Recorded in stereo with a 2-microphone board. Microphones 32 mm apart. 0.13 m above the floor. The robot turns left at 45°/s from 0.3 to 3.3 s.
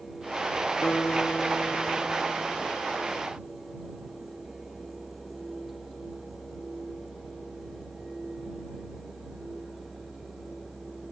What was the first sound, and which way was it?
A guitar, 65° left.